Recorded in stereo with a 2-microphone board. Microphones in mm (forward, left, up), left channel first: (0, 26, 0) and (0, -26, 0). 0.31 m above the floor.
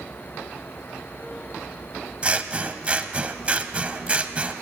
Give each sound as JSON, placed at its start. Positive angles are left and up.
{"t": 2.2, "sound": "scissors", "side_deg": -25, "distance_m": 0.5}